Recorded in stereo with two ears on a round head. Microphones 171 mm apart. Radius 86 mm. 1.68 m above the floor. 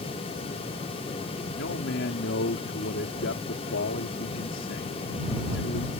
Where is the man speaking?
70° left (ahead or behind).